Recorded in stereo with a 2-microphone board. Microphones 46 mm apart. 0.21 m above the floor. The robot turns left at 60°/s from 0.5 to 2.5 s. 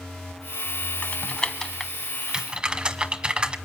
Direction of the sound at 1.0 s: 35° left (ahead or behind).